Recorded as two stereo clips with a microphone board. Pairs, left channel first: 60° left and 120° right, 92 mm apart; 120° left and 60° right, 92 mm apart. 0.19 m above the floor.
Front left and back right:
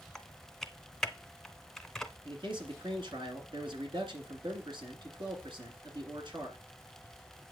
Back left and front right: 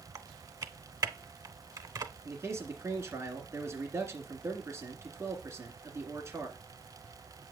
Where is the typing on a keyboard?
25° right, 0.6 m.